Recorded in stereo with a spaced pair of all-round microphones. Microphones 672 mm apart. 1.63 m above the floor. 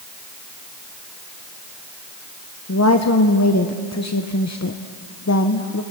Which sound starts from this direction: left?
A woman speaking, at 2.7 s.